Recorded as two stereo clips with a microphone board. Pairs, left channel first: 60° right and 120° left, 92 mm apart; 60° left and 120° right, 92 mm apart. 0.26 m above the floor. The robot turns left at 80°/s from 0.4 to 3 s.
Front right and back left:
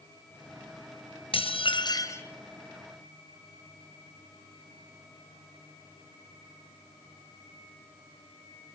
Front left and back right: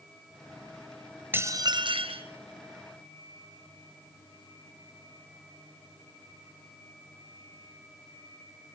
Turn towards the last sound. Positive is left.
turn(degrees=175)